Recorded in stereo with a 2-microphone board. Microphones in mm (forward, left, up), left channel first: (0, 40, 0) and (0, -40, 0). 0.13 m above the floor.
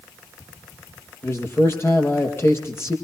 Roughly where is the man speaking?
Left.